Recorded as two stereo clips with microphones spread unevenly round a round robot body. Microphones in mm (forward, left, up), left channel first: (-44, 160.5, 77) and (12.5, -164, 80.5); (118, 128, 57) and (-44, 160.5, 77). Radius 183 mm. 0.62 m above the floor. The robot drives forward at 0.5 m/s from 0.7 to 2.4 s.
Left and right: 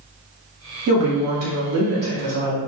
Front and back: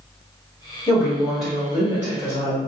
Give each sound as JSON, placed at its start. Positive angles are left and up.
{"t": 0.9, "sound": "a woman speaking", "azimuth_deg": -80, "distance_m": 1.5}